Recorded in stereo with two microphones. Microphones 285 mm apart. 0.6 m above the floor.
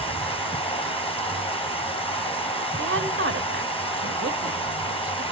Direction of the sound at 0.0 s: 20° left (ahead or behind).